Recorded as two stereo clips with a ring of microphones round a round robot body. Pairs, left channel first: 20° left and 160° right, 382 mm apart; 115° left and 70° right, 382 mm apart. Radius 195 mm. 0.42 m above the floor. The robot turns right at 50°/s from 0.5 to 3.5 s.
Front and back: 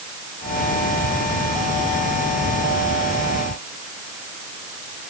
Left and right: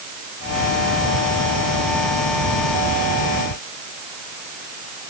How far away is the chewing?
I don't hear chewing.